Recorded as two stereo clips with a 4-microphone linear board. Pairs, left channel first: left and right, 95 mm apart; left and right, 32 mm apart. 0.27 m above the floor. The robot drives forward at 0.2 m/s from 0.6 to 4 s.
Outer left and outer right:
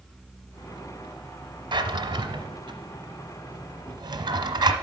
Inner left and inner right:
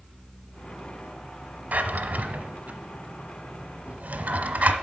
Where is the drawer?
60° right (ahead or behind), 1.0 m; by 4.7 s 50° right (ahead or behind), 1.1 m.